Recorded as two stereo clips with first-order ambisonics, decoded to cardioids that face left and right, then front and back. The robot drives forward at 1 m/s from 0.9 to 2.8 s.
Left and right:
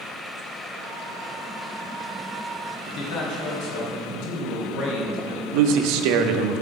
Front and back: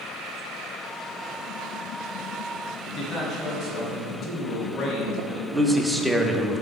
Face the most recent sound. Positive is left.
turn(degrees=-95)